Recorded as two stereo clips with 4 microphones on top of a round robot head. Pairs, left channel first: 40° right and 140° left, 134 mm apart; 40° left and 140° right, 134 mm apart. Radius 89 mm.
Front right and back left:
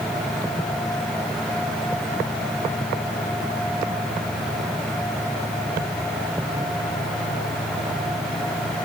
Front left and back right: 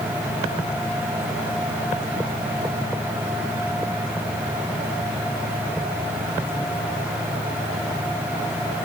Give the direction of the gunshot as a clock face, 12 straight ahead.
No gunshot in this recording.